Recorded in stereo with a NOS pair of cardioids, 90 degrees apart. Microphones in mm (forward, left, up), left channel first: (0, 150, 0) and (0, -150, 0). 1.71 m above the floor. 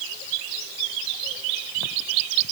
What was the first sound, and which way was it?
Only background noise.